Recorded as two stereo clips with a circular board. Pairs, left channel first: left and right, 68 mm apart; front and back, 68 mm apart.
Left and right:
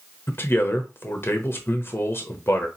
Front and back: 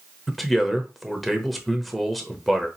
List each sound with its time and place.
0.3 s a man speaking: 90° left, 1.0 m